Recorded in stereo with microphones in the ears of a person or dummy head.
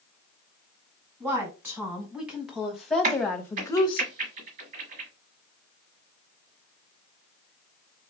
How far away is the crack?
About 1.5 m.